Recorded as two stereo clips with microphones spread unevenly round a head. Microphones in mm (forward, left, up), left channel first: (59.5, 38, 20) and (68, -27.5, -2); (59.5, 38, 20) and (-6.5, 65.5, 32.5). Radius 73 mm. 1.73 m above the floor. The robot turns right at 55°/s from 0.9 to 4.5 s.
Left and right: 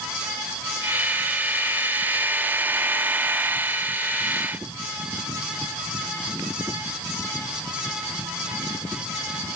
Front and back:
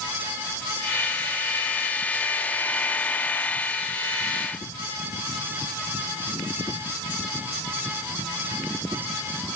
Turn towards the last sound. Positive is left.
No sound to turn to.